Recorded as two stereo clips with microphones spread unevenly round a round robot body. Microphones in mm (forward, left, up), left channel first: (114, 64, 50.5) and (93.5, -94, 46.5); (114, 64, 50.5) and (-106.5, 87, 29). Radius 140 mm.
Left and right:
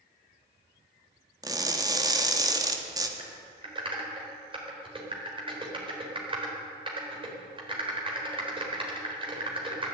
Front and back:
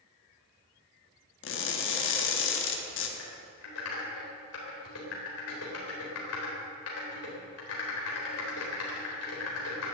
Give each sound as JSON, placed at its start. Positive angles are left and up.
{"t": 1.4, "sound": "crushing", "azimuth_deg": -35, "distance_m": 1.8}
{"t": 3.2, "sound": "typing on a keyboard", "azimuth_deg": -40, "distance_m": 3.5}